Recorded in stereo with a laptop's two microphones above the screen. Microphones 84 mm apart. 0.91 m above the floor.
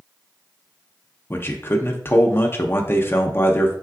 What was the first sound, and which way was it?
A man speaking, 30° left (ahead or behind).